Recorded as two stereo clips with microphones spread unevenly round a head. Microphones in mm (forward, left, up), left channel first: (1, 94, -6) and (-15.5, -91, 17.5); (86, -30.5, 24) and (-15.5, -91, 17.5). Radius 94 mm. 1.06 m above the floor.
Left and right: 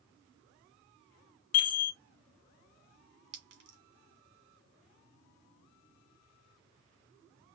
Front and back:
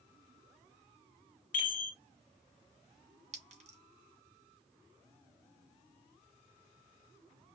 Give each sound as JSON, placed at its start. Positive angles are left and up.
{"t": 1.5, "sound": "a chime", "azimuth_deg": 75, "distance_m": 1.0}
{"t": 3.3, "sound": "a clink", "azimuth_deg": -125, "distance_m": 2.5}